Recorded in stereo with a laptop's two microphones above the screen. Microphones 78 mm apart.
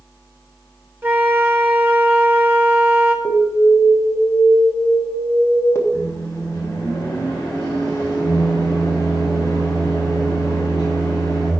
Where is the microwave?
45° left (ahead or behind), 3 m.